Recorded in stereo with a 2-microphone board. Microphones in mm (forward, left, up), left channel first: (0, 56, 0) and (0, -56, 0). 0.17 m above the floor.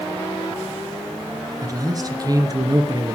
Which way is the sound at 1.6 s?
35° right (ahead or behind).